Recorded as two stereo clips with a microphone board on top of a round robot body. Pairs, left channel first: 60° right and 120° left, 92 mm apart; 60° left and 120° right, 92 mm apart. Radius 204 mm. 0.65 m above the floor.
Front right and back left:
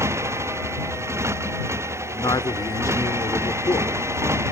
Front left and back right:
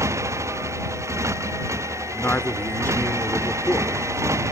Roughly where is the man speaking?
Ahead.